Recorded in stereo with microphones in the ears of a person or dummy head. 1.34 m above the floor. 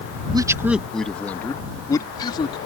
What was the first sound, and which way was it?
A man speaking, 25° right (ahead or behind).